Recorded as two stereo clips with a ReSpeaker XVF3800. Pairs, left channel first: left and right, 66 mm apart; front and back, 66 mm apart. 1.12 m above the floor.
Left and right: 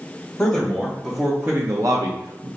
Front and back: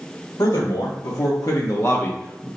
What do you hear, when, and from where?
0.4 s a man speaking: 10° left, 1.0 m; by 2.5 s 85° right, 0.7 m